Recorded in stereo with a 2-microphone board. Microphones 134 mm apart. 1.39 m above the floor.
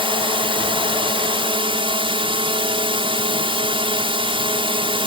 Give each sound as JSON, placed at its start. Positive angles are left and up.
{"t": 0.0, "sound": "a drone", "side_deg": -40}